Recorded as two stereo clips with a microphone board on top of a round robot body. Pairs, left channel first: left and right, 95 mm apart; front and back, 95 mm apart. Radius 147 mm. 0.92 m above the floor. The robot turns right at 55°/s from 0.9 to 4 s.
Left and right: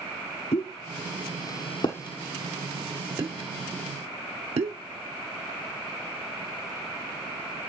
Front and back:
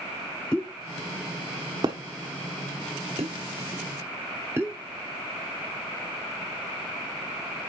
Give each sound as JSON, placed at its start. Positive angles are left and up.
{"t": 0.5, "sound": "a pop", "azimuth_deg": 80, "distance_m": 0.7}